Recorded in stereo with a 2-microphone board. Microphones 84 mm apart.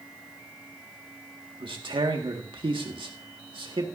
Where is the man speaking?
85° right, 1.8 m.